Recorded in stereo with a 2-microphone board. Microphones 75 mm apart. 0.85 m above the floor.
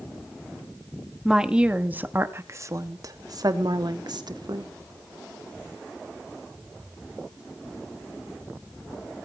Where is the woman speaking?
5° right (ahead or behind), 1.6 m; by 4.7 s 70° right (ahead or behind), 2.5 m.